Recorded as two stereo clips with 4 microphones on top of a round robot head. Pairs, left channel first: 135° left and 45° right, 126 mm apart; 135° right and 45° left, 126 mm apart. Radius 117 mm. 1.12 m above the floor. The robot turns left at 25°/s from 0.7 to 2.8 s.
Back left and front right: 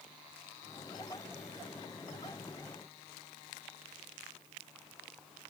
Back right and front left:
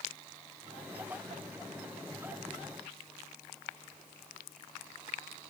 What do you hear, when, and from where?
Only background noise.